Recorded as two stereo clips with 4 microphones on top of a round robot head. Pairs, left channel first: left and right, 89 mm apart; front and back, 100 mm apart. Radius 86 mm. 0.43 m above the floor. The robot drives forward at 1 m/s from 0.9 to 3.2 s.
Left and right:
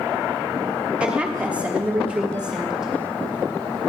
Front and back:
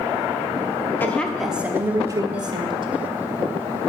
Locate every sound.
1.0 s a woman speaking: 30° right, 1.2 m; by 2.9 s 170° right, 1.9 m